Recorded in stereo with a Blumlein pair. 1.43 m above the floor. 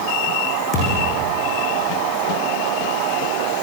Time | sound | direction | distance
0.7 | a thud | 30° left | 9.5 m